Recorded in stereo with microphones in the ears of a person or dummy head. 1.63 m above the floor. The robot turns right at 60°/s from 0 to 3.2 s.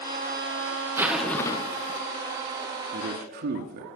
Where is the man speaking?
35° right (ahead or behind), 0.8 m; by 3.9 s 50° right (ahead or behind), 0.8 m.